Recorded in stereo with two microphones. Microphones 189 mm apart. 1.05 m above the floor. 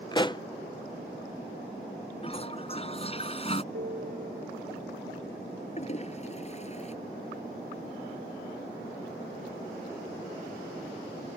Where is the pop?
25° left (ahead or behind).